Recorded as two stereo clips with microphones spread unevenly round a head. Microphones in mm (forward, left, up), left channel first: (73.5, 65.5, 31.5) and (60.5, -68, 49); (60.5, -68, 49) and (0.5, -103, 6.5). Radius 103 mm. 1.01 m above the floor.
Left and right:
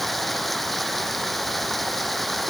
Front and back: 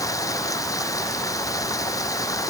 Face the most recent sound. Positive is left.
turn(degrees=-5)